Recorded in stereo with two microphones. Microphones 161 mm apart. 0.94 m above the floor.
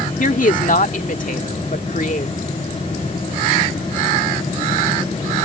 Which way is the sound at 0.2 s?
60° left (ahead or behind).